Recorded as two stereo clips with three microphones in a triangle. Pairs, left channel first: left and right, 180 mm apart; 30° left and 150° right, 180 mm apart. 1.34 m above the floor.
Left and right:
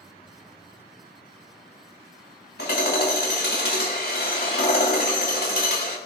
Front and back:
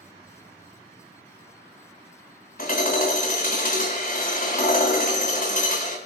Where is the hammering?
65° left, 3.5 m.